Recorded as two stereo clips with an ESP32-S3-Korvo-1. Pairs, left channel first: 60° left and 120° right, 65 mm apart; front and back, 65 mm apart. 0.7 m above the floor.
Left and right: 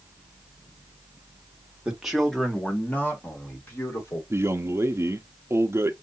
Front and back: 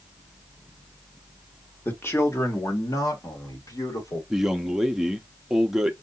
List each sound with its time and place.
1.9 s a man speaking: 50° right, 1.3 m; by 4.2 s 10° left, 3 m
4.3 s a man speaking: 100° right, 0.8 m